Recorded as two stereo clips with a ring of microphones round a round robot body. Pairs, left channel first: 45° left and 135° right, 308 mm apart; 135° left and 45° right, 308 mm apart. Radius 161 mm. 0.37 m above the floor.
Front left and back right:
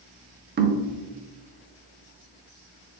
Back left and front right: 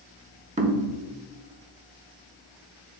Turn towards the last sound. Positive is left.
turn(degrees=-100)